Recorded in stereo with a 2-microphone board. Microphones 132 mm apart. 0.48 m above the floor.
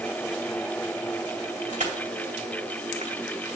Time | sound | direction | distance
1.7 | crushing | 65° right (ahead or behind) | 2 m